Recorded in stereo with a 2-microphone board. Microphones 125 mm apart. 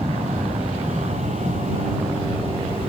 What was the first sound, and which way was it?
An aircraft, 65° right (ahead or behind).